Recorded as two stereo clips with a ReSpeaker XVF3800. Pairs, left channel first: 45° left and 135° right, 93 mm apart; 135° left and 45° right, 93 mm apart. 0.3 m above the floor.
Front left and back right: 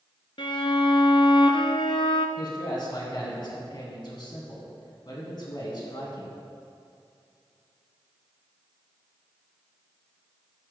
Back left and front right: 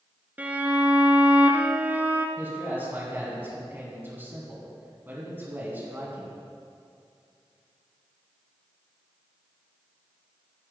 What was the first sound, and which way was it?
A violin, 25° left.